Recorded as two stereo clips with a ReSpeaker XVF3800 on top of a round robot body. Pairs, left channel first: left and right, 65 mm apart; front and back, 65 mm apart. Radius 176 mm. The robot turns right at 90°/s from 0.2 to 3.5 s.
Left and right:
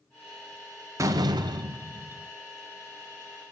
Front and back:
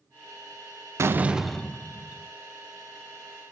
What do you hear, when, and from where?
1.0 s a door slam: 135° right, 0.6 m; by 2.3 s 15° right, 0.6 m